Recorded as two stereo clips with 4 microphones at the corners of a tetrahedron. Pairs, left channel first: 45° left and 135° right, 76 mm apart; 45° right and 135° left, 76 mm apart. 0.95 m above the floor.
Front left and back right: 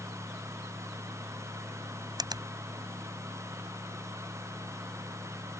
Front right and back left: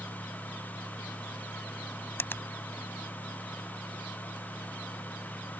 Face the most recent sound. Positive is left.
turn(degrees=-105)